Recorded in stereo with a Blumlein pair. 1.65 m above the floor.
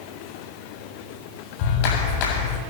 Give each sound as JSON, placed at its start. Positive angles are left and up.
{"t": 1.6, "sound": "a clap", "azimuth_deg": 45, "distance_m": 8.0}